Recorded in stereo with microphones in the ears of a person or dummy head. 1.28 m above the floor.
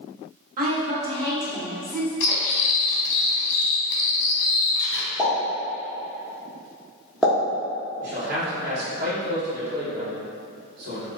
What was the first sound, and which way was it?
A woman speaking, 50° right (ahead or behind).